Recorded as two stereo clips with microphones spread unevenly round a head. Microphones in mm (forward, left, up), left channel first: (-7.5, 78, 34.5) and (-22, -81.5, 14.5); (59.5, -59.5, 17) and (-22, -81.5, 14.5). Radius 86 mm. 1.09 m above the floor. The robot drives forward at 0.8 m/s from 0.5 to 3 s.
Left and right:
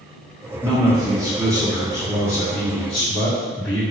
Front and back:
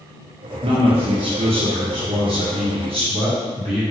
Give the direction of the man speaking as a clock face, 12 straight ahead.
6 o'clock.